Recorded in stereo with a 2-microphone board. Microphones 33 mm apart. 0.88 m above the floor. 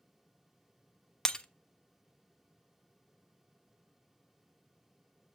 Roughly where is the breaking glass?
Left.